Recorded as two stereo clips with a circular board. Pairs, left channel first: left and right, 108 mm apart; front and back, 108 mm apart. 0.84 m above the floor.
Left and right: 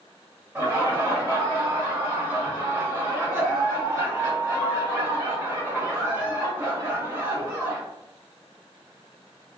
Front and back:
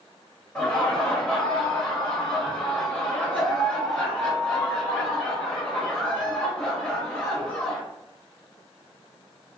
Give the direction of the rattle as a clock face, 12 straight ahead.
No rattle in this recording.